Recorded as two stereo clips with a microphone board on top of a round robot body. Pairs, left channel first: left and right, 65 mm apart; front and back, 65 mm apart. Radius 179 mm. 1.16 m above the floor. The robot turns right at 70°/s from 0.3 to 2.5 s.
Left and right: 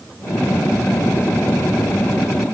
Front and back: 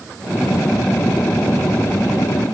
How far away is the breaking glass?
No breaking glass in this recording.